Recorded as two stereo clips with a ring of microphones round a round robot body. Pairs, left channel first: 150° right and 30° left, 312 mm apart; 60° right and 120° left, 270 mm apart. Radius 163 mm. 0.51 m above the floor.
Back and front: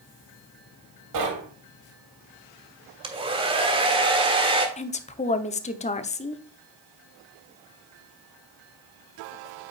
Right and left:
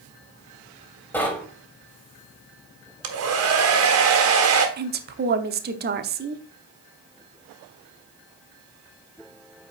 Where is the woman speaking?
150° left, 0.9 m.